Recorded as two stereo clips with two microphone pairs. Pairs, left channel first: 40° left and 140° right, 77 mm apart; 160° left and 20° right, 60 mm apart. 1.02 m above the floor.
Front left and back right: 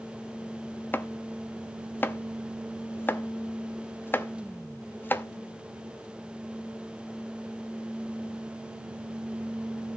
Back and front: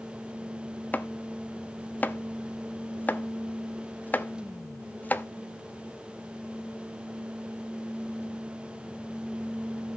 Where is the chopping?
100° left, 0.7 m.